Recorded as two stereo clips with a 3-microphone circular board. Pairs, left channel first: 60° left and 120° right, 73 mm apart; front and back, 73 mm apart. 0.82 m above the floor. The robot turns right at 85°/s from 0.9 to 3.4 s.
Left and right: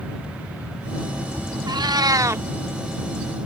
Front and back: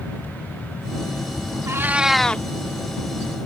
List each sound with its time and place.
1.7 s a cat meowing: 135° right; by 2.4 s 65° right